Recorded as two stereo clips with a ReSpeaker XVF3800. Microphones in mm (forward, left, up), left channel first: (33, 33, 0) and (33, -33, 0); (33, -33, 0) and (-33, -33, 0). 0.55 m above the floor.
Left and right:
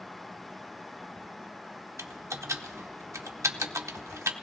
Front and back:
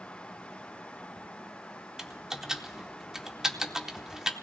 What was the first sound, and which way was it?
Typing on a keyboard, 100° right.